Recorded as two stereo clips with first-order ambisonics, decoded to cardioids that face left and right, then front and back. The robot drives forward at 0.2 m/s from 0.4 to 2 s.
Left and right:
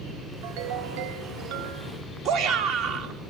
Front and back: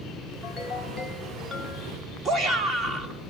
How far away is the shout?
About 2 m.